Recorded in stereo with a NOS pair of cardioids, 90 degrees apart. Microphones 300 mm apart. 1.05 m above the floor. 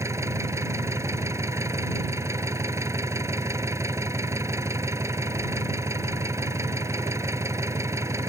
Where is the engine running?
10° right.